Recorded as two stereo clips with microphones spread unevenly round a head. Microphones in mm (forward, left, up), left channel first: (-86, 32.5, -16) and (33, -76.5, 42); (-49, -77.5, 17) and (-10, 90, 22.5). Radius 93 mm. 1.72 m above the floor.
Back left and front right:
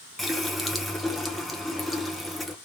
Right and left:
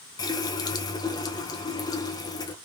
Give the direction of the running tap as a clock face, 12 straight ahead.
2 o'clock.